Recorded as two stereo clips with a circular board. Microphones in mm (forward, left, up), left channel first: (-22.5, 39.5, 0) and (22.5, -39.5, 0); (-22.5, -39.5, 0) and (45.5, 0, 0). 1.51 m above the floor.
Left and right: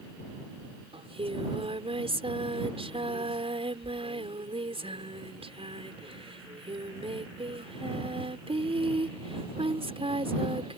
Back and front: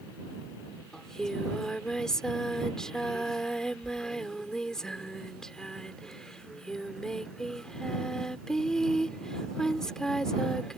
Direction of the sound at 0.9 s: 65° right.